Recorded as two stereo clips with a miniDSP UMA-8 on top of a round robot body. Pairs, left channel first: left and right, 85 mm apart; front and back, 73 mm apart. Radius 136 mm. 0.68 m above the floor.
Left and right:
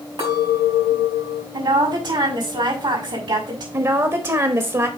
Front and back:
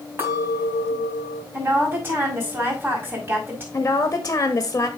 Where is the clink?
120° right, 4.5 m.